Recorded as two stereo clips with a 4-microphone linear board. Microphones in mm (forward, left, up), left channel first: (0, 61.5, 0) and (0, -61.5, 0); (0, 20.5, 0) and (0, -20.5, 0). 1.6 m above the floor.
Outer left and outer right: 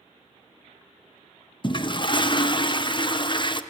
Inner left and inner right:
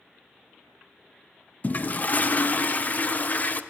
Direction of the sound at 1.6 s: 40° left (ahead or behind).